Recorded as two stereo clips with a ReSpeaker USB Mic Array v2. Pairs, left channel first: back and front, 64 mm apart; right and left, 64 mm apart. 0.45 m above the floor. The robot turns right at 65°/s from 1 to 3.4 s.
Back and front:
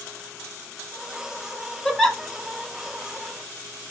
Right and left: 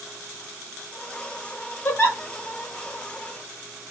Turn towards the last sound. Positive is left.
turn(degrees=-5)